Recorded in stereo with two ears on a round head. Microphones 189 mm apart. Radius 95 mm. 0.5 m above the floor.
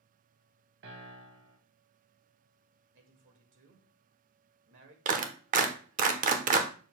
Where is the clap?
40° right (ahead or behind), 0.8 m.